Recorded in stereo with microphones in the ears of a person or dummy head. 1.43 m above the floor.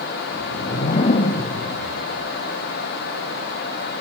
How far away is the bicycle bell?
No bicycle bell in this recording.